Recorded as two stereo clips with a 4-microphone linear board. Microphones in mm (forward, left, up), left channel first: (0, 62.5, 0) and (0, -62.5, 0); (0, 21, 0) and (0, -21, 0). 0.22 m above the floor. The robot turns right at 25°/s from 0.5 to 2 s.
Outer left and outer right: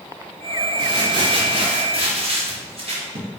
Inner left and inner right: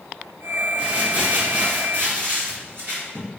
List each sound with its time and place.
0.8 s crumpling: 135° right, 2.5 m; by 3.3 s 105° right, 2.5 m